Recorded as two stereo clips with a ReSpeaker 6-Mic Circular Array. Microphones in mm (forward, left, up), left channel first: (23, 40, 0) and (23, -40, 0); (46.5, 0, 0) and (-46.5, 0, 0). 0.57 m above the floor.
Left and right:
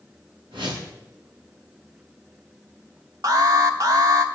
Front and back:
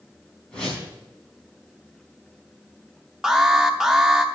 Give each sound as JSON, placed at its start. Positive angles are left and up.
{"t": 0.5, "sound": "a whoosh", "azimuth_deg": -80, "distance_m": 4.5}
{"t": 3.2, "sound": "an alarm", "azimuth_deg": -100, "distance_m": 1.0}